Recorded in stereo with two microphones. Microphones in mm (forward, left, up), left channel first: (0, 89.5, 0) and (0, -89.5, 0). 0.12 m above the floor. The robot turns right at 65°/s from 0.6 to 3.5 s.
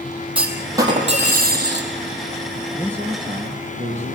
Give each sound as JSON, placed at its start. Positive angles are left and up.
{"t": 0.3, "sound": "a clunk", "azimuth_deg": -175, "distance_m": 4.0}
{"t": 2.7, "sound": "a man speaking", "azimuth_deg": -175, "distance_m": 2.0}